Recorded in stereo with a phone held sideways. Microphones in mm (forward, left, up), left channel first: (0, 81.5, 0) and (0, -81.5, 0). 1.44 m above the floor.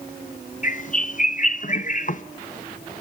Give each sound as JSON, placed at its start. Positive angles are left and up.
{"t": 0.6, "sound": "a bird", "side_deg": 50, "distance_m": 0.8}